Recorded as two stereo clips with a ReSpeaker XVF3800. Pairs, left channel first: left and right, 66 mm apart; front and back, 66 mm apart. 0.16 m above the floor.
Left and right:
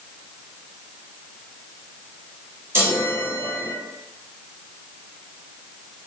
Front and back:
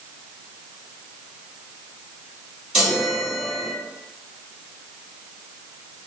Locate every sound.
2.7 s a chime: 110° right, 1.9 m